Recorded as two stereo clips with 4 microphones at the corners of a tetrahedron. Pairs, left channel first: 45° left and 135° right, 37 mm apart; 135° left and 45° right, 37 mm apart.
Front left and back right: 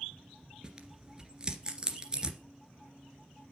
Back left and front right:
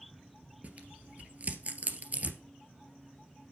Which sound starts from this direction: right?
Tearing paper, at 0.6 s.